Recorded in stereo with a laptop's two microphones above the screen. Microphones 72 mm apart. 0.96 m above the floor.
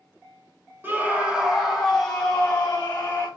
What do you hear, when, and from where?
0.8 s a scream: 25° right (ahead or behind), 0.9 m; by 3.3 s 20° left (ahead or behind), 1.8 m